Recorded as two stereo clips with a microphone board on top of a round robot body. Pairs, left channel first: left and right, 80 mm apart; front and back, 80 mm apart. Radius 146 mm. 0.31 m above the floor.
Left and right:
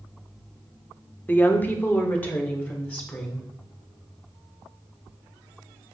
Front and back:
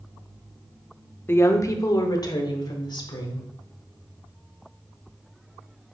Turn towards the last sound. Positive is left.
turn(degrees=25)